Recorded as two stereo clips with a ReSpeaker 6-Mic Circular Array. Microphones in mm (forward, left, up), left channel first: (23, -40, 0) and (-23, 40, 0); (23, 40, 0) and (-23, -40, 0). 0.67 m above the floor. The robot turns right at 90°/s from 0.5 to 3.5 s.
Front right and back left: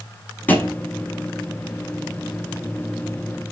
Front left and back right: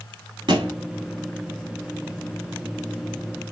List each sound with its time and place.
0.5 s a thud: 125° right, 1.1 m; by 0.8 s 105° right, 1.1 m